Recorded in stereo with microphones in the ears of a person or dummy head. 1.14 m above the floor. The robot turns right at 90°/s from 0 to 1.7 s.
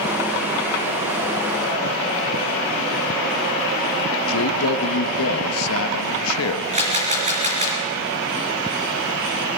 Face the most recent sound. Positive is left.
turn(degrees=-30)  # may be behind; listen again after turning